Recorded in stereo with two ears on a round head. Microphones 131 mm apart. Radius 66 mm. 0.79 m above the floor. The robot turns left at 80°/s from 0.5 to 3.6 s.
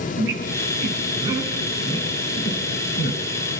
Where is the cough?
I don't hear a cough.